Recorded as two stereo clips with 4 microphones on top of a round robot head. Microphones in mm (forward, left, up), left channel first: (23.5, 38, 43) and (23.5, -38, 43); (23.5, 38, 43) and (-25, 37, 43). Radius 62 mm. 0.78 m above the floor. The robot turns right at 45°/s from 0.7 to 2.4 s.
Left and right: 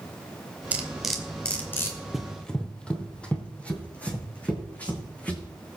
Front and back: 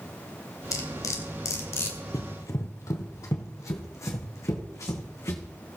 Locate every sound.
0.7 s cutlery clinking: 20° right, 2 m; by 2.0 s 40° left, 2 m
2.1 s running footsteps: 5° right, 1.3 m; by 5.4 s 20° left, 4 m